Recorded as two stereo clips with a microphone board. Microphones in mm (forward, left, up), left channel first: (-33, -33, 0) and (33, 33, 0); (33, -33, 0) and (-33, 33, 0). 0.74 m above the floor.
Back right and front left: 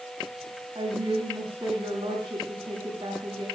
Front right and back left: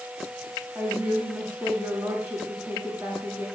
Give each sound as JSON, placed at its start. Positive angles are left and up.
{"t": 0.8, "sound": "a woman speaking", "azimuth_deg": 70, "distance_m": 9.0}